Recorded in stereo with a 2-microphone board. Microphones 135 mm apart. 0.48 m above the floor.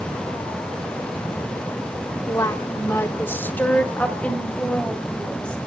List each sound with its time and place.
2.3 s a woman speaking: 25° left (ahead or behind), 1.0 m; by 5.6 s 5° left (ahead or behind), 3 m